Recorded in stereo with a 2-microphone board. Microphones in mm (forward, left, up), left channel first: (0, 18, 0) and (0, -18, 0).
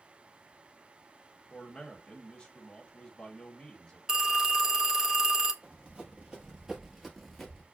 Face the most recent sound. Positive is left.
turn(degrees=10)  # may be behind; listen again after turning